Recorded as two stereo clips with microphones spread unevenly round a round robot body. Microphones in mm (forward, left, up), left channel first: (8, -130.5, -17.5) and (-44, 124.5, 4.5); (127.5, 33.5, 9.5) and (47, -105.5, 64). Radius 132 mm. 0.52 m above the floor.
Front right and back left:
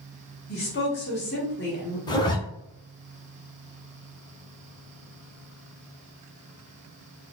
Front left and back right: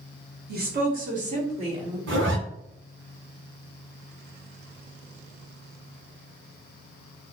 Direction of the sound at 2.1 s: 150° right.